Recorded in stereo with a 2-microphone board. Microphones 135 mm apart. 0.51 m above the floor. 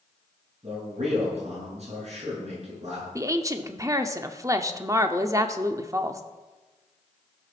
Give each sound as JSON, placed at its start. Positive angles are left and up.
{"t": 0.6, "sound": "a man speaking", "side_deg": -50, "distance_m": 6.5}
{"t": 3.1, "sound": "a woman speaking", "side_deg": -25, "distance_m": 0.8}